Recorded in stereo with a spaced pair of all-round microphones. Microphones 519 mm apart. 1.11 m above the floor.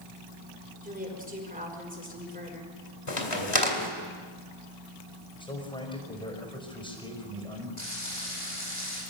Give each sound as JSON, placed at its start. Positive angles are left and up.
{"t": 0.8, "sound": "a woman speaking", "side_deg": -15, "distance_m": 5.5}
{"t": 3.1, "sound": "a crack", "side_deg": 80, "distance_m": 2.5}
{"t": 5.4, "sound": "a man speaking", "side_deg": 10, "distance_m": 5.0}
{"t": 7.8, "sound": "frying", "side_deg": 70, "distance_m": 10.0}